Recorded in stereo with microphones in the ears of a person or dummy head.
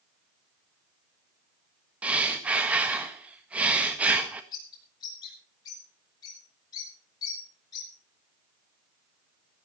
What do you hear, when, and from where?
2.0 s breathing: 5° right (ahead or behind), 1.6 m
4.5 s a bird: 20° left (ahead or behind), 7.5 m